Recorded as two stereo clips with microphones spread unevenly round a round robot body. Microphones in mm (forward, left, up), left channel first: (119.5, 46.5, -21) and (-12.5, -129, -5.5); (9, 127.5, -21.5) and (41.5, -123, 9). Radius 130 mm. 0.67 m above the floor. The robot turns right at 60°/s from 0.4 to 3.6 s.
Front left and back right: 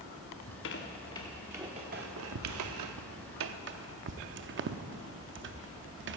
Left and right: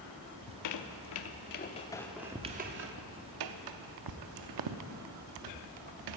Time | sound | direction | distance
0.4 | a squeak | 85° left | 0.6 m